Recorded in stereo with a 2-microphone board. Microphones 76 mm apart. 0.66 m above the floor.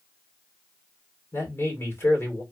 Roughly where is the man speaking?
Left.